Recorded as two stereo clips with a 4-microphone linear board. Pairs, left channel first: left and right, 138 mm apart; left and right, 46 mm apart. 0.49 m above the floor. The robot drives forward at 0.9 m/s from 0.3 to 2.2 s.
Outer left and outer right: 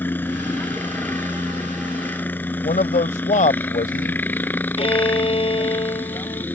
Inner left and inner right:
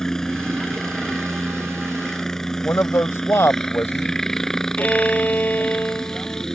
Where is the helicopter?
15° left (ahead or behind); by 6.5 s 10° left (ahead or behind).